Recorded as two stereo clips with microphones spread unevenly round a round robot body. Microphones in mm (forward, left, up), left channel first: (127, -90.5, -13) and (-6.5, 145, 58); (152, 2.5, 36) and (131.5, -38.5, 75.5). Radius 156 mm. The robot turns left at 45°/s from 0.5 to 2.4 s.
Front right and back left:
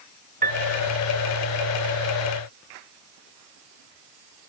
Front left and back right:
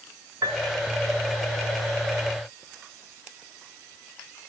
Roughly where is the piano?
Behind.